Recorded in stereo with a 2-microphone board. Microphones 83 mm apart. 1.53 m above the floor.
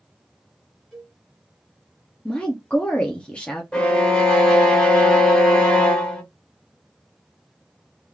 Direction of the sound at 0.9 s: Centre (ahead or behind).